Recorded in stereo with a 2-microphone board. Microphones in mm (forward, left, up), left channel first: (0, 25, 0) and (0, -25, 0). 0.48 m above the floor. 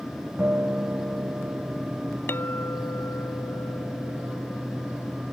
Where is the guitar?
40° right (ahead or behind).